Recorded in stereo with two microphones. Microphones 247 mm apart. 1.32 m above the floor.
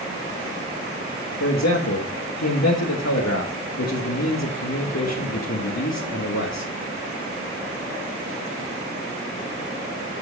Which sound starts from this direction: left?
A man speaking, at 1.4 s.